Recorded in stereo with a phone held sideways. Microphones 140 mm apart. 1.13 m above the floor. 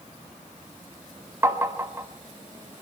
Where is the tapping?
15° right (ahead or behind), 1.0 m.